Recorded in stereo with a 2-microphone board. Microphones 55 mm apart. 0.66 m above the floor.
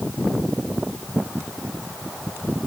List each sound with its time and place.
Only background noise.